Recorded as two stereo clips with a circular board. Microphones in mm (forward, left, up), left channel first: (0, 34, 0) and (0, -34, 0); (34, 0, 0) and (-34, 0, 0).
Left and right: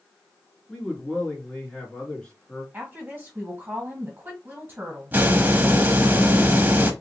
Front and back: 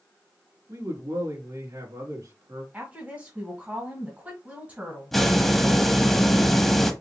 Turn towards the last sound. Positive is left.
turn(degrees=-80)